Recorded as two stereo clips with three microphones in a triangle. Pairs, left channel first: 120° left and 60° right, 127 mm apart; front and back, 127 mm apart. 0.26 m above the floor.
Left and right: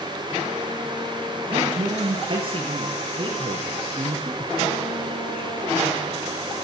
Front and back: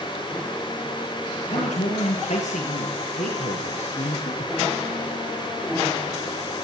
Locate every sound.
1.5 s a man speaking: 15° right, 7.5 m